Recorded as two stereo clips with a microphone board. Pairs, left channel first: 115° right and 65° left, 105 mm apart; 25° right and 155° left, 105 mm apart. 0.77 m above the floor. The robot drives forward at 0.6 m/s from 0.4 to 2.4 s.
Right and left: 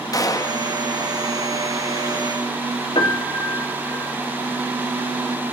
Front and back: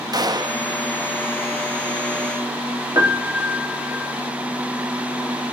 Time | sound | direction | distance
0.1 | a gunshot | 160° right | 0.6 m
3.0 | a piano | 140° right | 2 m